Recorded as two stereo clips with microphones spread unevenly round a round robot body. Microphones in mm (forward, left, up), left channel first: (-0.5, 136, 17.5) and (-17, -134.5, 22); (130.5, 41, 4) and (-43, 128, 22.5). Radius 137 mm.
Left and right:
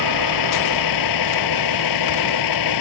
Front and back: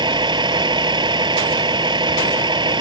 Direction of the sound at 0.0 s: 85° left.